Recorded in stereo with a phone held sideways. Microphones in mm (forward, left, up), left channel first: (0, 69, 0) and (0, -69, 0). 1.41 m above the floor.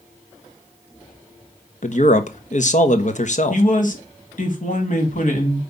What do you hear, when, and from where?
1.8 s a man speaking: 55° left (ahead or behind), 1.2 m
3.5 s a man speaking: 60° left (ahead or behind), 2.5 m